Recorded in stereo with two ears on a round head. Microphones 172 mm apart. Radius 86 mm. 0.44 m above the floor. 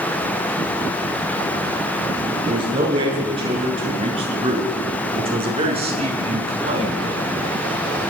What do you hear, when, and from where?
2.5 s a man speaking: 25° right (ahead or behind), 8.5 m; by 7.2 s 35° right (ahead or behind), 4.5 m